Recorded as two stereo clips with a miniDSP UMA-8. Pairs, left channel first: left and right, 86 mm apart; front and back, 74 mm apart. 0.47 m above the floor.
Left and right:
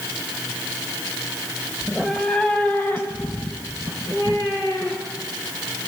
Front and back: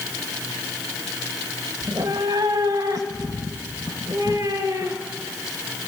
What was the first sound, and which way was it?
A cat meowing, 175° right.